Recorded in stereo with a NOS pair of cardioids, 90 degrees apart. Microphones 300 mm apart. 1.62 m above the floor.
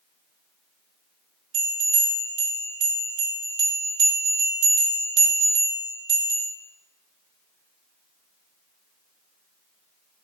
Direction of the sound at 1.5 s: 45° right.